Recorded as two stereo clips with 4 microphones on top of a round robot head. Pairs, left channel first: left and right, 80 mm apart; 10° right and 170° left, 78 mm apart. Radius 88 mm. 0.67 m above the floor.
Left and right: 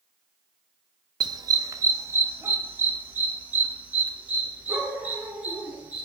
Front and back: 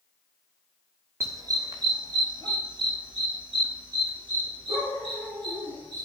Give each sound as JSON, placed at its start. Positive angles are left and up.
{"t": 1.2, "sound": "a dog barking", "azimuth_deg": -125, "distance_m": 0.7}